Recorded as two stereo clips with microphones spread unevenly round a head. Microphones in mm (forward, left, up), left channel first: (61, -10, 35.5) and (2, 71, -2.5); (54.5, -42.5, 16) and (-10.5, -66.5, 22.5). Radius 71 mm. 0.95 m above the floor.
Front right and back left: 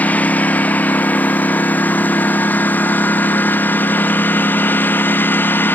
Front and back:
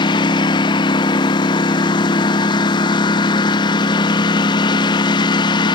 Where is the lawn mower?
20° left; by 5.8 s 15° left.